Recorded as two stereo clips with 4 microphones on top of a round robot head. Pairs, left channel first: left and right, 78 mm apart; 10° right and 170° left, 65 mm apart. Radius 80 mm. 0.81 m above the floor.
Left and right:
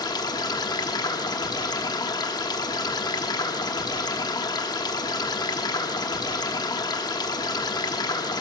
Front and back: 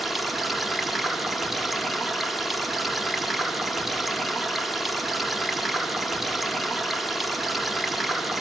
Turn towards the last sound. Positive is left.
turn(degrees=80)